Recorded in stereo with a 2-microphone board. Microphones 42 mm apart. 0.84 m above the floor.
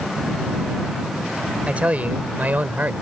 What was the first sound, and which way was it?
A man speaking, 35° right (ahead or behind).